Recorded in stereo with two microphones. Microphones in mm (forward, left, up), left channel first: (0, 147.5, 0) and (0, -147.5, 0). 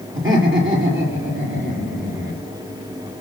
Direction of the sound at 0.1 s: 45° right (ahead or behind).